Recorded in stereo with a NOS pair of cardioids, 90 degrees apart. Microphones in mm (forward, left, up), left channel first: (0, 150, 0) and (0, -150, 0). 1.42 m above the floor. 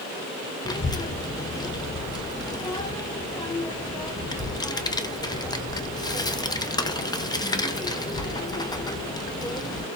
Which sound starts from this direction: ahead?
A child speaking, at 0.7 s.